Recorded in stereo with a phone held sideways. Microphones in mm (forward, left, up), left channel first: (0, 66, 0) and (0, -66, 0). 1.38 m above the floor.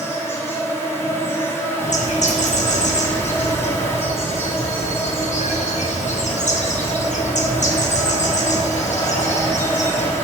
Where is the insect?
20° left (ahead or behind), 1.3 m.